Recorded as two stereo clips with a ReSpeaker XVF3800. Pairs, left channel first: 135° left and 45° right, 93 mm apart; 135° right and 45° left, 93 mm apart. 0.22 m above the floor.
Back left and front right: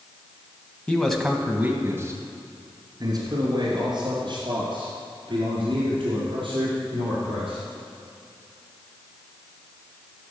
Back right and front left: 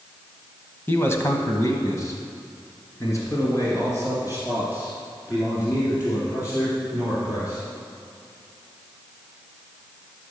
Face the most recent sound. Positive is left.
turn(degrees=-75)